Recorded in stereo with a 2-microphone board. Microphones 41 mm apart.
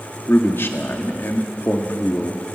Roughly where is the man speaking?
Left.